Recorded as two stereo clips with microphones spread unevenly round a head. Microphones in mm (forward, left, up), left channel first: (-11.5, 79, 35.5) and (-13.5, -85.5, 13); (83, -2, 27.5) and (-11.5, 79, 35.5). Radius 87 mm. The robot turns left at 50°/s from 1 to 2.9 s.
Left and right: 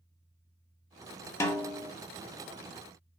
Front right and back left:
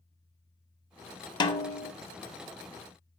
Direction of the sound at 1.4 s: 15° left.